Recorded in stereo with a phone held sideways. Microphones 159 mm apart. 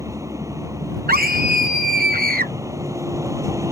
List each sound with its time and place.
0.0 s a vehicle: 20° right (ahead or behind)
1.1 s a scream: 80° right